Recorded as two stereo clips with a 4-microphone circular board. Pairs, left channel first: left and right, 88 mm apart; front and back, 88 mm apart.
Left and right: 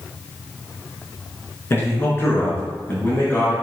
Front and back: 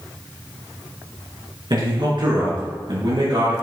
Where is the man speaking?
150° left, 4 m; by 3.5 s 155° left, 5 m.